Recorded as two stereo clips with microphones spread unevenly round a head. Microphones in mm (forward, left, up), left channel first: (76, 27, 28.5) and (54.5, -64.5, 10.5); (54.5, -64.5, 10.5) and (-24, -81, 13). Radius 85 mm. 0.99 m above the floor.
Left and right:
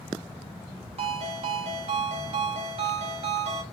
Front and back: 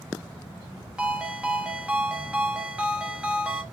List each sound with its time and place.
1.0 s a ringtone: 95° right, 1.0 m